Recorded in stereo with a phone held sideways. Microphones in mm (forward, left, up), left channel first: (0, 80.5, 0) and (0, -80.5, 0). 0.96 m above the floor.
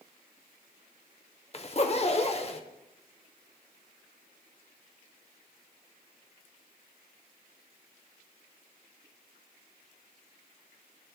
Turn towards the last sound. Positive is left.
turn(degrees=40)  # may be behind; listen again after turning